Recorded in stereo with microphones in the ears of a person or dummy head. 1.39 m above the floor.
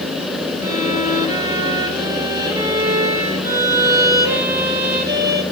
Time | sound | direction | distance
0.6 | a violin | 20° right (ahead or behind) | 1.6 m